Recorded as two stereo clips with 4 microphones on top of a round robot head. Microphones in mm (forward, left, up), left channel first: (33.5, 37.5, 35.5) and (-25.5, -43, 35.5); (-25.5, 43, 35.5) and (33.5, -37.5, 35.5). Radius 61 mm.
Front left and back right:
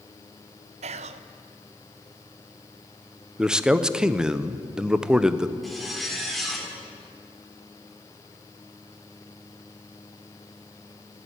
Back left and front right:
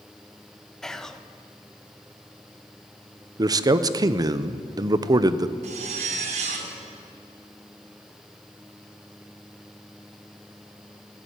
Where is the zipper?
35° right, 2 m.